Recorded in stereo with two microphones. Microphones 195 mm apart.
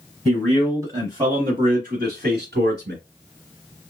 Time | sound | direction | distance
0.2 | a man speaking | centre (ahead or behind) | 1.2 m